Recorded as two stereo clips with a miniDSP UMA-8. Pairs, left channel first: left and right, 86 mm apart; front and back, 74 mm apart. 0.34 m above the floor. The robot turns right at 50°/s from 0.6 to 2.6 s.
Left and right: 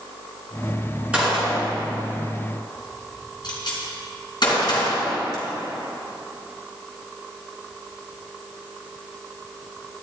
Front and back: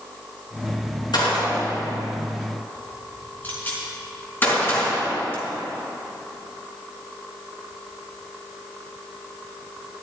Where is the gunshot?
15° right, 4.5 m; by 5.4 s 60° left, 4.5 m.